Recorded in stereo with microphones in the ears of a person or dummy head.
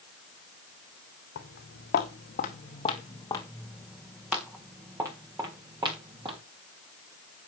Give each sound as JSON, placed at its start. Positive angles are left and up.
{"t": 1.4, "sound": "footsteps", "side_deg": 65, "distance_m": 3.5}